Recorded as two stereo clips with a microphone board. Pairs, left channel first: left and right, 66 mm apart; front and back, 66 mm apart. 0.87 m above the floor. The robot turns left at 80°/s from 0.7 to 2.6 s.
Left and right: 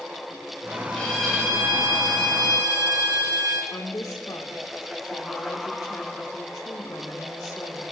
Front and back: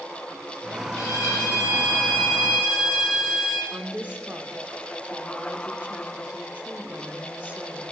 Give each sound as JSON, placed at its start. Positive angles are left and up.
{"t": 0.9, "sound": "a violin", "azimuth_deg": 25, "distance_m": 6.5}
{"t": 3.7, "sound": "a woman speaking", "azimuth_deg": 115, "distance_m": 2.0}